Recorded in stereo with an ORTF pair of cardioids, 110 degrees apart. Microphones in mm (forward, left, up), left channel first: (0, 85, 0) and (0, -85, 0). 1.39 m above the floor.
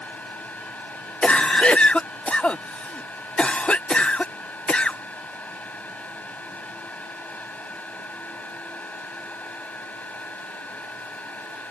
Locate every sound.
0.0 s a fan: 10° left
1.2 s a cough: 5° left